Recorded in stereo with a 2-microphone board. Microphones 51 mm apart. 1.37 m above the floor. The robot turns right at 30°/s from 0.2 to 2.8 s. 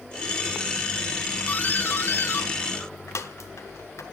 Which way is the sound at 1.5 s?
40° left (ahead or behind).